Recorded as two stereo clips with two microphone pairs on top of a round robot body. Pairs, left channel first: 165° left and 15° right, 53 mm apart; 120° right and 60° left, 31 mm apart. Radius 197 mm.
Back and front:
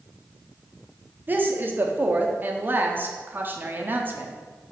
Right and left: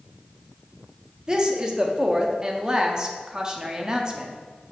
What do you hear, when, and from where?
1.3 s a woman speaking: 10° right, 0.9 m